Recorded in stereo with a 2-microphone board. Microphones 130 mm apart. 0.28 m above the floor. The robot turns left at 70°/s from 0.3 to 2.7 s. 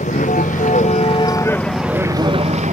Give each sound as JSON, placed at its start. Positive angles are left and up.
{"t": 0.0, "sound": "a vehicle", "azimuth_deg": 100}